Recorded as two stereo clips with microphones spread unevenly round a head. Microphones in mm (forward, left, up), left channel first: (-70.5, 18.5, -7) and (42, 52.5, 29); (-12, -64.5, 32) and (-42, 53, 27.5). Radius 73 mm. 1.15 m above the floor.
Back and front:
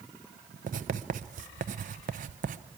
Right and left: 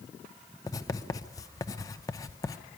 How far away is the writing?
About 0.6 m.